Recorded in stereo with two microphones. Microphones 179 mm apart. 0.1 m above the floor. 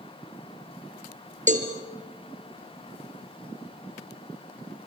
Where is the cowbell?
45° right (ahead or behind), 2.5 m.